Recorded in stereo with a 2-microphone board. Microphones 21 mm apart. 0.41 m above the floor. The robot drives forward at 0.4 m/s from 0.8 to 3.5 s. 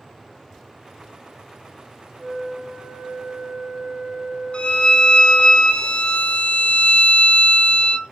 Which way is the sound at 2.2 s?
40° right (ahead or behind).